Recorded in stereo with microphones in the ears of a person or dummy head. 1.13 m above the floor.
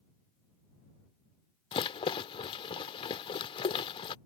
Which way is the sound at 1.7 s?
25° left (ahead or behind).